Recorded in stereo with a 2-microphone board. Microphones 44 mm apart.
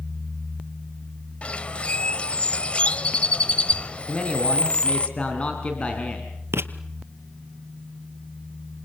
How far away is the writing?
About 1.3 m.